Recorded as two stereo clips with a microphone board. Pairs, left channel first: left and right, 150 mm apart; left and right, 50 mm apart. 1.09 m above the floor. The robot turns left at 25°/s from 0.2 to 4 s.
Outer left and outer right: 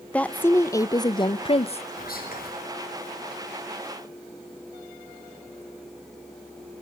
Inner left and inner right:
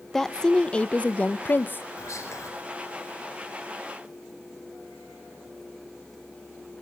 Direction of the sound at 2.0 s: 80° left.